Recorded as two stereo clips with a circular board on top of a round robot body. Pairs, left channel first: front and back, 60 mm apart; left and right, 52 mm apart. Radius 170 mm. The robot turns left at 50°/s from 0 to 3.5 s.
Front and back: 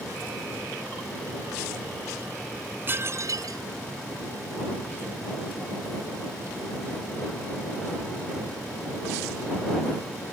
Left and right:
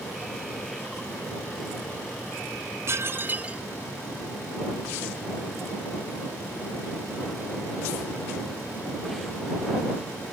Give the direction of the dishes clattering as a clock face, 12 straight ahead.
4 o'clock.